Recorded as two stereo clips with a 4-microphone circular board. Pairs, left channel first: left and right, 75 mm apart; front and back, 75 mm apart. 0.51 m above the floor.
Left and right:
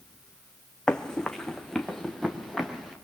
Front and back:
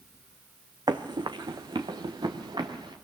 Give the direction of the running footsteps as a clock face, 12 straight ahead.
6 o'clock.